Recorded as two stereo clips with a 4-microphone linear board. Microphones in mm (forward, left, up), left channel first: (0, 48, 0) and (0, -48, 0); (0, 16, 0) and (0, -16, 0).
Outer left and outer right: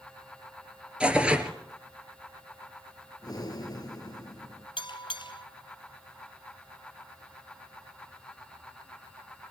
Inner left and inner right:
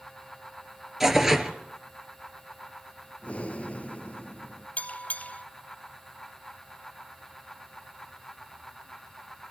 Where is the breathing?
45° left (ahead or behind), 2.5 m.